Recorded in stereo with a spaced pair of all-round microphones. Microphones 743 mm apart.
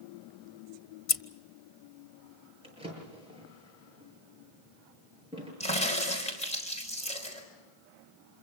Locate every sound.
1.1 s scissors: 50° left (ahead or behind), 0.9 m
2.6 s a drawer: 10° right (ahead or behind), 8 m
5.6 s a crack: 10° left (ahead or behind), 5 m